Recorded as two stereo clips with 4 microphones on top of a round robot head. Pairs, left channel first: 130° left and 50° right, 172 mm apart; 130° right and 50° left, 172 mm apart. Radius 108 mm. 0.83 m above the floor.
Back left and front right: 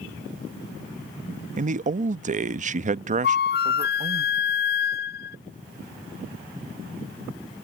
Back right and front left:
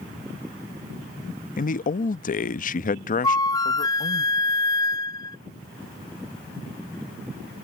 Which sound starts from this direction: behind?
A flute, at 3.2 s.